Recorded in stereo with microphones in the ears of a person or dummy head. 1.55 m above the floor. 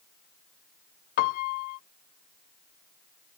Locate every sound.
1.2 s a piano: 50° left (ahead or behind)